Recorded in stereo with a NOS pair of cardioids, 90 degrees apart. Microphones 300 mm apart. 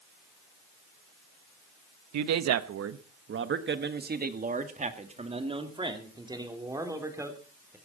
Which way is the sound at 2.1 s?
70° right.